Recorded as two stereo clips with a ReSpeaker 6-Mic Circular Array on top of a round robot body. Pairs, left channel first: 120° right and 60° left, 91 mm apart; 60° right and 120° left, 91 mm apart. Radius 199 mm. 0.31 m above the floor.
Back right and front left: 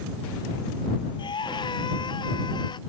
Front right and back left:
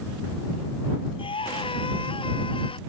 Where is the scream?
85° right; by 2.8 s 80° right.